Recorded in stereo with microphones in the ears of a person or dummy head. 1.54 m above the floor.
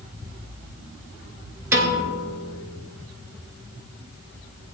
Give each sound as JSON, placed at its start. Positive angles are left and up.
{"t": 1.7, "sound": "a piano", "side_deg": -15, "distance_m": 2.5}